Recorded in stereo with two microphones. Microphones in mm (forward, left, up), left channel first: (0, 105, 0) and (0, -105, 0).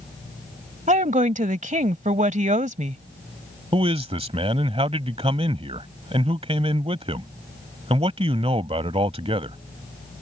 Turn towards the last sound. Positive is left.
turn(degrees=-30)  # may be behind; listen again after turning